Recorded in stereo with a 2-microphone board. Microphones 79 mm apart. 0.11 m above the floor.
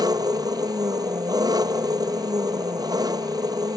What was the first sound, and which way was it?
An engine running, 55° right (ahead or behind).